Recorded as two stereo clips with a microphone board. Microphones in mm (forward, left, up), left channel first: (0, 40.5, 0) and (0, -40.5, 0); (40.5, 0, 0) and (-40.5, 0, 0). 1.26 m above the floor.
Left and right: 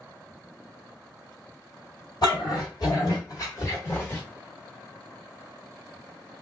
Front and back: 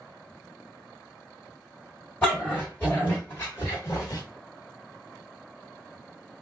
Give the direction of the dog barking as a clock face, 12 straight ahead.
10 o'clock.